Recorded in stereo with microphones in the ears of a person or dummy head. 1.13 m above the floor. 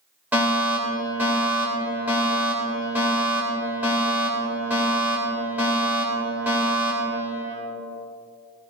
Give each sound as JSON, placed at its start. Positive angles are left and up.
{"t": 0.3, "sound": "a fire alarm", "side_deg": -15, "distance_m": 3.0}